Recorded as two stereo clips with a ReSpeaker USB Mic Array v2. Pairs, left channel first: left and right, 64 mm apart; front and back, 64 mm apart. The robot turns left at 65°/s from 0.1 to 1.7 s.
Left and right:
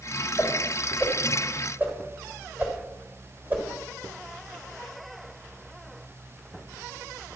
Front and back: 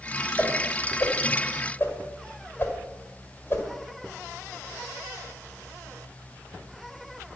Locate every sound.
0.4 s a whoosh: 40° left, 1.7 m; by 3.6 s 45° right, 1.7 m